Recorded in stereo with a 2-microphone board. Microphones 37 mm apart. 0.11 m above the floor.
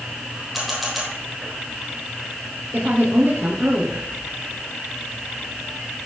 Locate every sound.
0.5 s a camera shutter: 5° right (ahead or behind), 3.5 m
2.7 s a woman speaking: 50° right (ahead or behind), 2.5 m